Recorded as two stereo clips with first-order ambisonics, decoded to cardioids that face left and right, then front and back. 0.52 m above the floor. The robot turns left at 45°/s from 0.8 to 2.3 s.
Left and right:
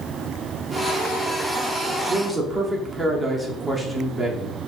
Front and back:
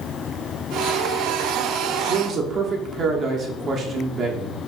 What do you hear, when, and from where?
2.1 s a man speaking: 155° right, 0.7 m; by 4.6 s 165° right, 0.7 m